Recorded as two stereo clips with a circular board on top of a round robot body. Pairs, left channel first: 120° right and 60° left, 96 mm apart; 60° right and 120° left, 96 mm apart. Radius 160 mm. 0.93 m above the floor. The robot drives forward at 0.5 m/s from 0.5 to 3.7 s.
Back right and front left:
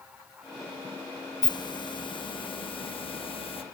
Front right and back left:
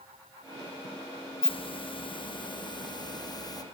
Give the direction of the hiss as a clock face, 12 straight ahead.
3 o'clock.